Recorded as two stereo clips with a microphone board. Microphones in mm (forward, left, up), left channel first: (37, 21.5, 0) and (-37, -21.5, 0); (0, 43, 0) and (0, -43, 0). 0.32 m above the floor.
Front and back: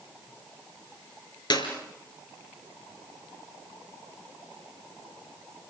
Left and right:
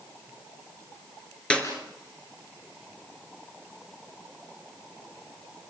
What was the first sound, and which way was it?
A clap, 15° left.